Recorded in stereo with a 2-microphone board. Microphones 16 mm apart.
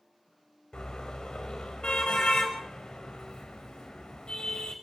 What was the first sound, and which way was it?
A car horn, 60° left (ahead or behind).